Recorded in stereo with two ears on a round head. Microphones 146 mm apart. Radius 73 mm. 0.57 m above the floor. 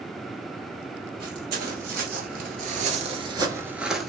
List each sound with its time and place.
1.2 s footsteps: 60° right (ahead or behind), 1.3 m; by 4.1 s 5° left (ahead or behind), 0.7 m